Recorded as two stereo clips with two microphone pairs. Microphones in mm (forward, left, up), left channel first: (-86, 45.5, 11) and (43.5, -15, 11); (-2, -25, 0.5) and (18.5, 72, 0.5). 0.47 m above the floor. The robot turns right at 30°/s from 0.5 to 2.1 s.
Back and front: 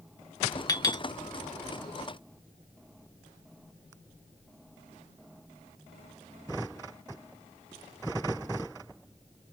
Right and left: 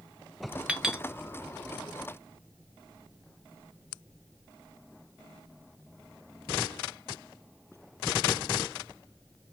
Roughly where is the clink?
Behind left.